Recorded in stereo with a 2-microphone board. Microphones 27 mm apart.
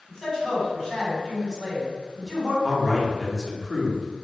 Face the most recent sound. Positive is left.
turn(degrees=-15)  # may be behind; listen again after turning